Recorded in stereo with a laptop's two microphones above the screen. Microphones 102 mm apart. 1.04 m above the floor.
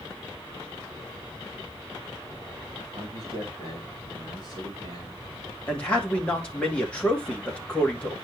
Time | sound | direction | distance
3.0 | a man speaking | 50° right (ahead or behind) | 3 m
5.7 | a man speaking | 10° left (ahead or behind) | 1.5 m